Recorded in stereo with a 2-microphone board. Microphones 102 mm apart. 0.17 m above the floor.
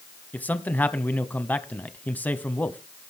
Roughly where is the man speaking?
Centre.